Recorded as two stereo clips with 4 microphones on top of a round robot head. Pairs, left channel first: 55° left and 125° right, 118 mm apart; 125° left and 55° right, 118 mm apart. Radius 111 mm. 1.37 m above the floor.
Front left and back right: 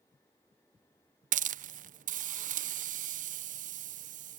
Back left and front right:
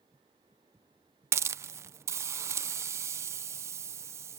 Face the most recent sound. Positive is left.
turn(degrees=-120)